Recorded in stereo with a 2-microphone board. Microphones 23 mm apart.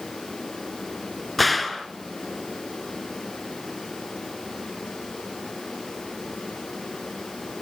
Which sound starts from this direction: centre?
A gunshot, at 1.4 s.